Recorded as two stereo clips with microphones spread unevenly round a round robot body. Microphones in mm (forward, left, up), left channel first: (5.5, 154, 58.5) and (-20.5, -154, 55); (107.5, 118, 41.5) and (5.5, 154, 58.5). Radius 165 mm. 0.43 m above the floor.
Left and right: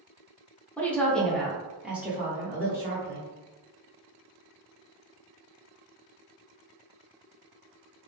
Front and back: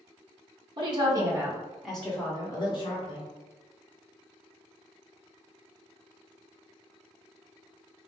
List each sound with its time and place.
0.8 s a woman speaking: 170° left, 1.1 m; by 3.3 s 15° right, 1.4 m